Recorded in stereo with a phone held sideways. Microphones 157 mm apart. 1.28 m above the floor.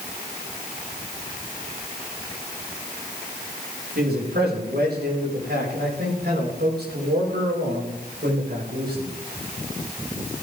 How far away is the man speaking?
About 7.5 m.